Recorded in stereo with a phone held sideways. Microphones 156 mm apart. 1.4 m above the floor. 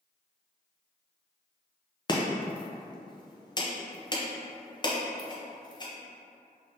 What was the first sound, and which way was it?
Chopping, 30° left (ahead or behind).